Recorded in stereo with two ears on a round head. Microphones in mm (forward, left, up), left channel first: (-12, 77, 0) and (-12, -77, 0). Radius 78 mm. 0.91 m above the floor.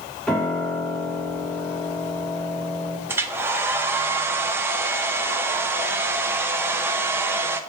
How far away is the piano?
About 1.1 m.